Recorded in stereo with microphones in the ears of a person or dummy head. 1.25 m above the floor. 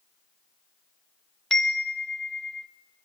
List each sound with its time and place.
1.5 s a chime: centre (ahead or behind), 0.6 m